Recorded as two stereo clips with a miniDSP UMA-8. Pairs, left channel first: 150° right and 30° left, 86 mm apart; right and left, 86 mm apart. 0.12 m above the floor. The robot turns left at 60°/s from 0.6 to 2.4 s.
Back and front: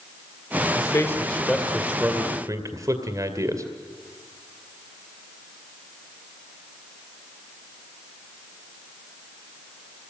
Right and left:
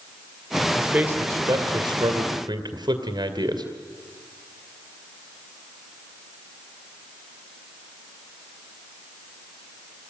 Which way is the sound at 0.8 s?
170° left.